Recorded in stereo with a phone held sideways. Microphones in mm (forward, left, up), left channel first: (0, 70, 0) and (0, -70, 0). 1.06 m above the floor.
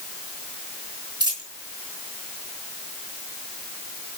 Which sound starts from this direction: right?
A dropped coin, at 1.2 s.